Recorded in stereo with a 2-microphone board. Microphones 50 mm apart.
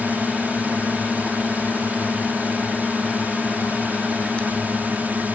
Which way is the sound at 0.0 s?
40° right (ahead or behind).